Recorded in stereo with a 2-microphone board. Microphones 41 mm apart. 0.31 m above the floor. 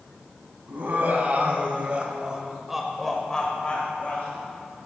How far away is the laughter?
About 2.0 m.